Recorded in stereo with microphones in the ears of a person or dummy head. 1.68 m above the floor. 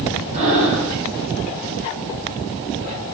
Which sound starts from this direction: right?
Breathing, at 0.3 s.